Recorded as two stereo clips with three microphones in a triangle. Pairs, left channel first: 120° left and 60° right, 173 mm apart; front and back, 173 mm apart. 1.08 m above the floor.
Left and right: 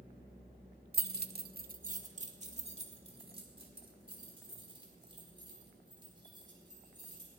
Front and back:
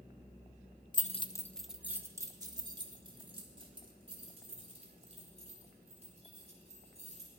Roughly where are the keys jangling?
Ahead right.